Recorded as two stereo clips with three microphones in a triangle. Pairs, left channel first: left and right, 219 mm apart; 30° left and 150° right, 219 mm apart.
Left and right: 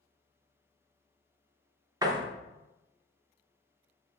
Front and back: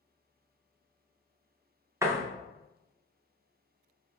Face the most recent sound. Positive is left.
turn(degrees=-105)